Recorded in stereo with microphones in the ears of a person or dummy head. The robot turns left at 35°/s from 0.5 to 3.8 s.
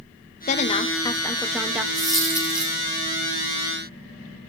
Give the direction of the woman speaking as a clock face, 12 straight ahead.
11 o'clock.